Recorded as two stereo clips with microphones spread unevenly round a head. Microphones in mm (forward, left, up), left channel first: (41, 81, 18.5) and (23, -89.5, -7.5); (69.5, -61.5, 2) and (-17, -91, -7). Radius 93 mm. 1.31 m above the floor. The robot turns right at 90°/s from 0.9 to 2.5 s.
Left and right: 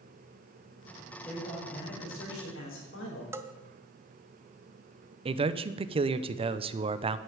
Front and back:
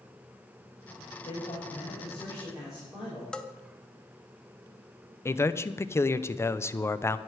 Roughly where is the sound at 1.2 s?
Ahead.